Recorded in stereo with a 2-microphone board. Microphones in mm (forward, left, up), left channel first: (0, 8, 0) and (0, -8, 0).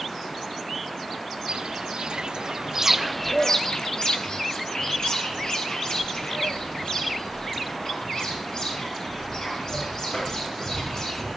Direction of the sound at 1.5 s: 85° right.